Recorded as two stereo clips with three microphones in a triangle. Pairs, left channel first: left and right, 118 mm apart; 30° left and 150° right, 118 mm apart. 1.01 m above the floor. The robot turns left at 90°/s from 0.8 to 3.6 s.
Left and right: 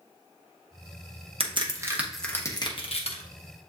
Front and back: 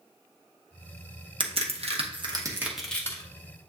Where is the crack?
115° right, 0.9 m; by 3.2 s 85° left, 0.9 m.